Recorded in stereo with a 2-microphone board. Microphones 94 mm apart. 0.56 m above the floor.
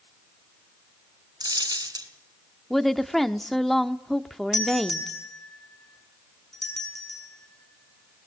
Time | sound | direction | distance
1.4 | a dropped coin | 45° right (ahead or behind) | 2.5 m
2.7 | a woman speaking | centre (ahead or behind) | 0.8 m
4.5 | a doorbell | 5° left (ahead or behind) | 6 m